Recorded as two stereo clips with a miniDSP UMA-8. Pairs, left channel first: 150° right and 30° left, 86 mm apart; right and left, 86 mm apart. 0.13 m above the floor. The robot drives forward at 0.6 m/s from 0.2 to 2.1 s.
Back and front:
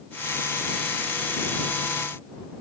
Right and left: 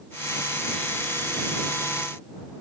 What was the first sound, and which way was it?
Only background noise.